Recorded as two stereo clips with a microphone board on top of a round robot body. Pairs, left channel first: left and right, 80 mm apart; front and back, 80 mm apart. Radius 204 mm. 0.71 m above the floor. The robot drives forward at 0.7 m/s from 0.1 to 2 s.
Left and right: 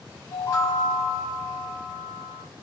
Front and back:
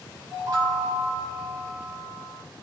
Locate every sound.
0.3 s a chime: 145° left, 2 m; by 2.4 s 155° left, 3 m